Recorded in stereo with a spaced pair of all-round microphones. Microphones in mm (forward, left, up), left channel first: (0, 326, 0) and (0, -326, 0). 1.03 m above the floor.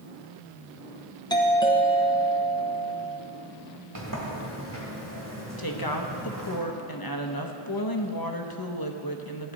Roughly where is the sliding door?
Right.